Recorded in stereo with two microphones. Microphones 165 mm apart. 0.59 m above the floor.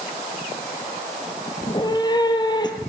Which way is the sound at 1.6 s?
25° left (ahead or behind).